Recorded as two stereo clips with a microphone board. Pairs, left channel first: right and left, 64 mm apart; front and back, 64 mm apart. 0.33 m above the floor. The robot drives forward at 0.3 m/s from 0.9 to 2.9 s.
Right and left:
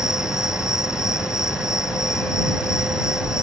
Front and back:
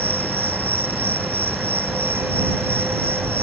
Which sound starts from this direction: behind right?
An insect, at 0.0 s.